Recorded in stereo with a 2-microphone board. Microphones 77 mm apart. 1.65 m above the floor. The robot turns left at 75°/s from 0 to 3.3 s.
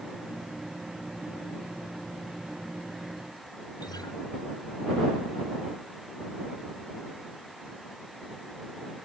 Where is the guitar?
70° left (ahead or behind).